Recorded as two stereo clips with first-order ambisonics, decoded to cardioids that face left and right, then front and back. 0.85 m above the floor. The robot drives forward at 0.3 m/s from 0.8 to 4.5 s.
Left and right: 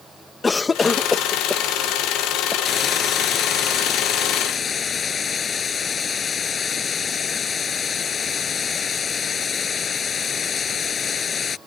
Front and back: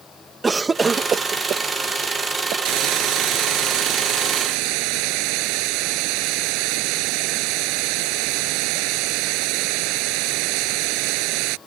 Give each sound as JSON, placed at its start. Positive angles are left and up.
{"t": 0.4, "sound": "a cough", "azimuth_deg": 135}
{"t": 2.6, "sound": "a hiss", "azimuth_deg": 155}